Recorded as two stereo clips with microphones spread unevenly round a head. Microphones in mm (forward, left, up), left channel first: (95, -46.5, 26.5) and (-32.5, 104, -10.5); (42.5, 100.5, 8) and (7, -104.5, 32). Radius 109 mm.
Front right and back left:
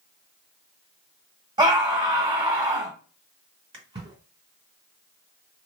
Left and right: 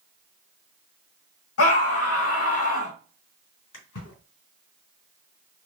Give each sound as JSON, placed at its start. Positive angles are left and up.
{"t": 1.6, "sound": "a scream", "azimuth_deg": 60, "distance_m": 1.7}
{"t": 3.7, "sound": "a splash", "azimuth_deg": 65, "distance_m": 2.0}